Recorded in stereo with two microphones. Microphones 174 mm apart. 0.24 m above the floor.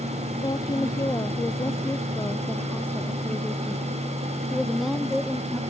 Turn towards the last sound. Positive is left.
turn(degrees=-5)  # may be behind; listen again after turning